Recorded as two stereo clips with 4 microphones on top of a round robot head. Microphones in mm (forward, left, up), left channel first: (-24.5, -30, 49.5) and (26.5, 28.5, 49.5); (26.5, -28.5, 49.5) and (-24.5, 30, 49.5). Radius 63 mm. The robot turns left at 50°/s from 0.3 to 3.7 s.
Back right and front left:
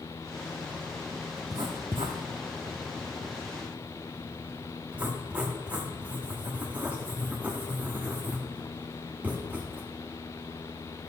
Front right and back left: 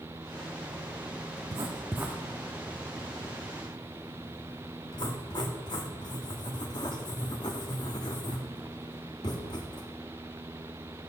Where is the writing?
95° left, 0.5 m; by 9.8 s 20° right, 0.5 m.